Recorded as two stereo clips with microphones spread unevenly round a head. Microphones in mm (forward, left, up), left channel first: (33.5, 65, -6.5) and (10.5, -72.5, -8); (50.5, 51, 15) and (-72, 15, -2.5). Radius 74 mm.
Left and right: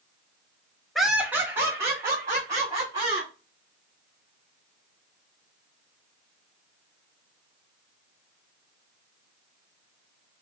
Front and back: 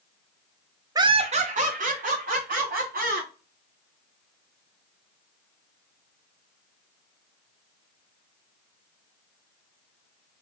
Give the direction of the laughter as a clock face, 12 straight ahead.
6 o'clock.